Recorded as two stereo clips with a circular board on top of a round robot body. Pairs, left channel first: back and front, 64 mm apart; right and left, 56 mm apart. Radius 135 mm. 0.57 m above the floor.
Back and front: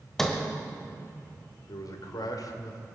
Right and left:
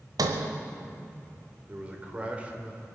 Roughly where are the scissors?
No scissors in this recording.